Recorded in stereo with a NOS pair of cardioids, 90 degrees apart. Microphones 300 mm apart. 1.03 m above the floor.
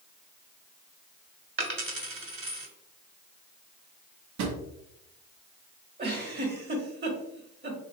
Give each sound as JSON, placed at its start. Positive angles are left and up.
{"t": 1.6, "sound": "a dropped coin", "azimuth_deg": -45, "distance_m": 1.7}
{"t": 4.4, "sound": "a drawer", "azimuth_deg": -65, "distance_m": 1.0}
{"t": 6.0, "sound": "a giggle", "azimuth_deg": -35, "distance_m": 1.5}